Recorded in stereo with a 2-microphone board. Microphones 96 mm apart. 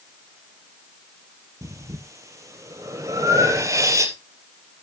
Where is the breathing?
35° right (ahead or behind), 1.7 m.